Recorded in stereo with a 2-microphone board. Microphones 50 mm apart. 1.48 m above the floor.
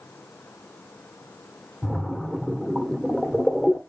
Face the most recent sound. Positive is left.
turn(degrees=15)  # may be behind; listen again after turning